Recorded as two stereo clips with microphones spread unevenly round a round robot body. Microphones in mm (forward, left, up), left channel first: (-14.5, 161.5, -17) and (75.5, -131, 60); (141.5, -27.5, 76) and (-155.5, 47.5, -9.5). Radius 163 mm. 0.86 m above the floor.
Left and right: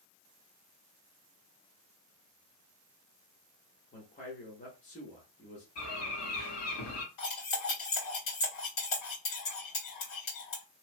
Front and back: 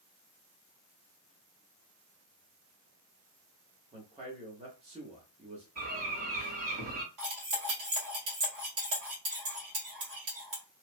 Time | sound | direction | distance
3.9 | a man speaking | 130° left | 1.0 m
5.8 | a bird | 120° left | 1.8 m
7.2 | cutlery clinking | 140° left | 1.9 m